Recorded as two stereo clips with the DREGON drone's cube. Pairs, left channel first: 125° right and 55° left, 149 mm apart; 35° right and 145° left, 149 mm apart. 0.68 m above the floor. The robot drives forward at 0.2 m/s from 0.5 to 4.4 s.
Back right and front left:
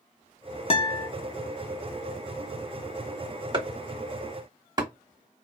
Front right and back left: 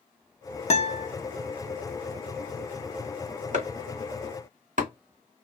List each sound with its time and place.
0.7 s a guitar: 75° right, 0.5 m; by 1.1 s 85° right, 0.5 m
3.5 s chopping: 110° left, 1.2 m; by 4.9 s 120° left, 1.3 m